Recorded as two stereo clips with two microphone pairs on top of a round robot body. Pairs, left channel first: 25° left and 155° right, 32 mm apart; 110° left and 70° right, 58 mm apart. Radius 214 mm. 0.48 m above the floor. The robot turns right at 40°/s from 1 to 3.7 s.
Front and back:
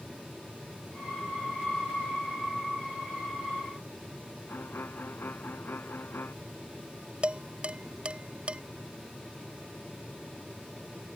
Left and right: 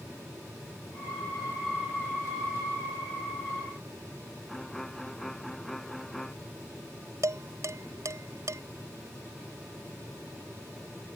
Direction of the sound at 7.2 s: 105° right.